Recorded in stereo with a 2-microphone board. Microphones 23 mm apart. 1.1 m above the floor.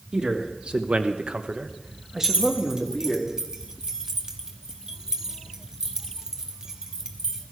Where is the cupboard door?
No cupboard door in this recording.